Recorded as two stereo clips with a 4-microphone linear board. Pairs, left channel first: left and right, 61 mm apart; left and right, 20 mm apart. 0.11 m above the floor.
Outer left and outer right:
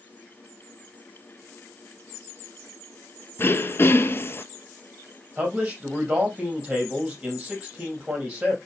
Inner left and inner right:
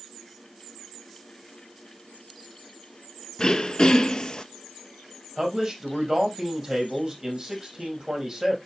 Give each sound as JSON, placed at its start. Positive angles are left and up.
{"t": 3.4, "sound": "throat clearing", "side_deg": 40, "distance_m": 0.6}
{"t": 5.4, "sound": "a man speaking", "side_deg": -15, "distance_m": 4.0}